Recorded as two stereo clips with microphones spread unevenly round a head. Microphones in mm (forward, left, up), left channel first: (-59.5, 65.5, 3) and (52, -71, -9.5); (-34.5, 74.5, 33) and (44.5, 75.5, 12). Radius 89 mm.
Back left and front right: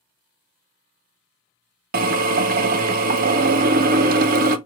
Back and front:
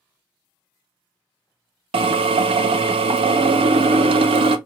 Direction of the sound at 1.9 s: 5° right.